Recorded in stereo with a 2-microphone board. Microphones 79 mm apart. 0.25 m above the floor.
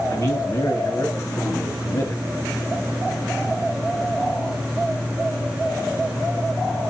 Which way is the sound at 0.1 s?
40° left (ahead or behind).